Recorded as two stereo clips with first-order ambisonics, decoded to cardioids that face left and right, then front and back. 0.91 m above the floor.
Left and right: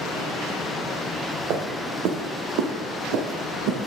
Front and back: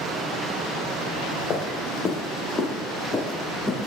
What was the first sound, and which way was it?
Footsteps, 55° right.